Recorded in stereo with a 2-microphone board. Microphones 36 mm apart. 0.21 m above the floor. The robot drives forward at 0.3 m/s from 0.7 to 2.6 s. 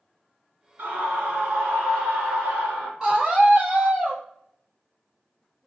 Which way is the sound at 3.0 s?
20° right (ahead or behind).